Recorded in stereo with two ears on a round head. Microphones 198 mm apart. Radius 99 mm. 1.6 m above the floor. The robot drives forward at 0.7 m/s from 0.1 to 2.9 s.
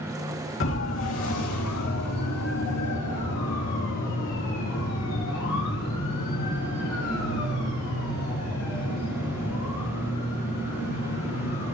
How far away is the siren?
About 3 m.